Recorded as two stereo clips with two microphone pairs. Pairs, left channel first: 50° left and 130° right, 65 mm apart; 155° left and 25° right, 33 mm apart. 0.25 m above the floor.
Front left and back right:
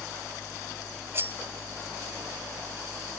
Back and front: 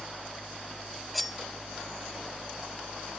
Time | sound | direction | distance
1.1 | cutlery clinking | 120° right | 0.6 m